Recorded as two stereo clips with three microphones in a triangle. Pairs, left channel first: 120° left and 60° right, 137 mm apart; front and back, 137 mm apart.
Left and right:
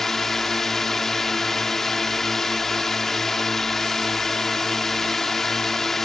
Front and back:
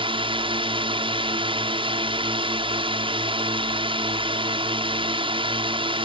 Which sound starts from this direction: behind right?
A drone, at 0.0 s.